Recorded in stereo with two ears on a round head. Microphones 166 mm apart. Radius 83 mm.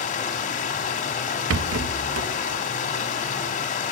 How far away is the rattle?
About 0.6 m.